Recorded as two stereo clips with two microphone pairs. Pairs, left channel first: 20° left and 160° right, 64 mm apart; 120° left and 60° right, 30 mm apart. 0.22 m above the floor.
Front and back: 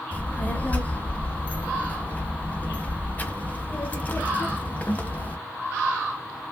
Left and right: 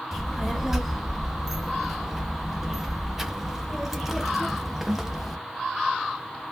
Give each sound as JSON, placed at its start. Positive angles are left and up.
{"t": 0.1, "sound": "a child speaking", "azimuth_deg": 0, "distance_m": 0.6}